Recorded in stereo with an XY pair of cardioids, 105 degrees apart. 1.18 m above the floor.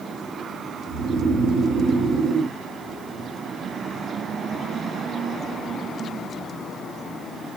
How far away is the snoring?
About 1.2 m.